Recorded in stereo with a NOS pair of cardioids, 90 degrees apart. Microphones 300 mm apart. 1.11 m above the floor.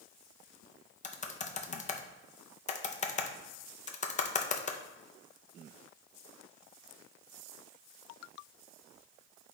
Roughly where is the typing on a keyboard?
Ahead left.